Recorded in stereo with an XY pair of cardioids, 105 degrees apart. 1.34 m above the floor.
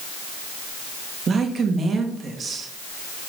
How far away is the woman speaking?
About 2 m.